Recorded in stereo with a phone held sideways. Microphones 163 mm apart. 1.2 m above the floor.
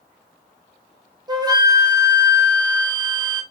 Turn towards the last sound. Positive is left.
turn(degrees=-25)  # may be behind; listen again after turning